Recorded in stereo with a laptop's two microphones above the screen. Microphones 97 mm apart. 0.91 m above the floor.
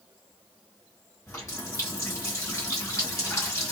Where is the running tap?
30° left (ahead or behind), 1.2 m.